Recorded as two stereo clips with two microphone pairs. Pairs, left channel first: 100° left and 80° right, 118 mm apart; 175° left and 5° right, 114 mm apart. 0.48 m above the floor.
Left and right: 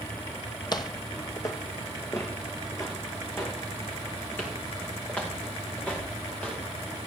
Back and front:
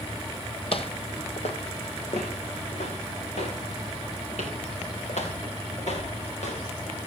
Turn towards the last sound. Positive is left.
turn(degrees=180)